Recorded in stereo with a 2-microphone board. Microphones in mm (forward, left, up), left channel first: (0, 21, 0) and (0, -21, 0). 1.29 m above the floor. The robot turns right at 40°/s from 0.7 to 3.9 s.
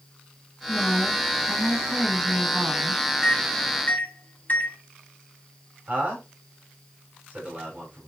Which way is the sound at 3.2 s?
10° left (ahead or behind).